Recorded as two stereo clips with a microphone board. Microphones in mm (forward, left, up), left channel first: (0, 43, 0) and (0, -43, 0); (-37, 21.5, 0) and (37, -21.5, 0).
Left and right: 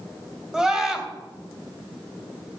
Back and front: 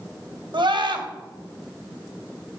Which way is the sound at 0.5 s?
5° right.